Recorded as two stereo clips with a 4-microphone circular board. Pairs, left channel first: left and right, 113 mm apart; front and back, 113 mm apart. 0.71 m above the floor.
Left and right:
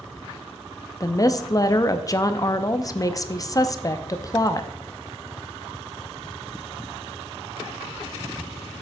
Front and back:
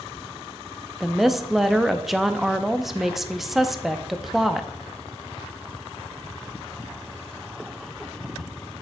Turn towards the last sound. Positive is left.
turn(degrees=95)